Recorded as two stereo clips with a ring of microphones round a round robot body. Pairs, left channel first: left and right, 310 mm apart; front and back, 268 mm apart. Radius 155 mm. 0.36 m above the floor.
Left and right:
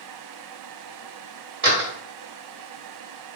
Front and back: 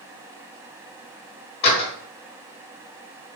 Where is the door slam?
45° right, 1.3 m.